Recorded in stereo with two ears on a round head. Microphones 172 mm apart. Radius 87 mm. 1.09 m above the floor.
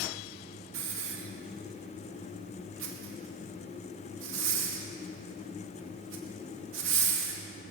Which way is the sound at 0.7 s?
70° right (ahead or behind).